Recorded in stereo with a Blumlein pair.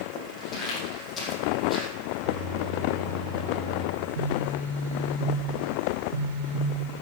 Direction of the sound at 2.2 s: 10° right.